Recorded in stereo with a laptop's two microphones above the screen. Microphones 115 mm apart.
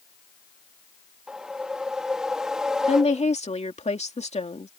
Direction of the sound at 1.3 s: 5° right (ahead or behind).